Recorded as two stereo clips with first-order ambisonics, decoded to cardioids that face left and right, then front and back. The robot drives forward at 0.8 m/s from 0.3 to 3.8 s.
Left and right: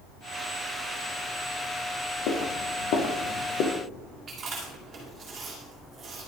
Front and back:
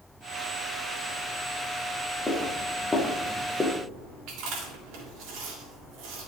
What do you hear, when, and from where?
2.3 s footsteps: 80° left, 3 m; by 3.7 s 90° left, 2.5 m
4.3 s chewing: 155° right, 3.5 m